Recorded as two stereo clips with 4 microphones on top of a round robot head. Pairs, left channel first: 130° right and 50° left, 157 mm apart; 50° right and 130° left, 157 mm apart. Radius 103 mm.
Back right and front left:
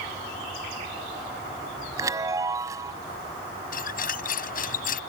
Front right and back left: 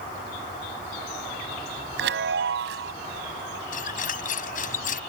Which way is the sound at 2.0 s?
125° left.